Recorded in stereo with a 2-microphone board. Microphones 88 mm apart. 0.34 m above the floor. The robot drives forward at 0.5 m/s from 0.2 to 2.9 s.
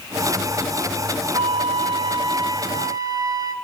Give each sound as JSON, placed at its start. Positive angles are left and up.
{"t": 1.3, "sound": "a flute", "side_deg": -85, "distance_m": 0.8}